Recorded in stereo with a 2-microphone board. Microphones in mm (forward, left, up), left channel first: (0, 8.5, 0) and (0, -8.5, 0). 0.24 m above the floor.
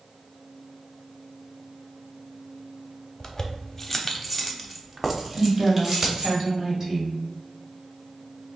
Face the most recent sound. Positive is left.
turn(degrees=-30)  # may be behind; listen again after turning